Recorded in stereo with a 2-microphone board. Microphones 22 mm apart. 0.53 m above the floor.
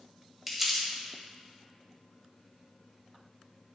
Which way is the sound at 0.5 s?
10° right (ahead or behind).